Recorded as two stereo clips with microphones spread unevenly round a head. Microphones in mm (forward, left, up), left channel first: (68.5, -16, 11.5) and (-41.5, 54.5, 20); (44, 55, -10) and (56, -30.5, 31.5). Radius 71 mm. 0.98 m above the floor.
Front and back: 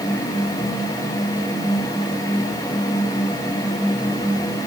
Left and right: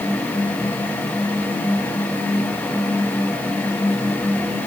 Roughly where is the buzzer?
No buzzer in this recording.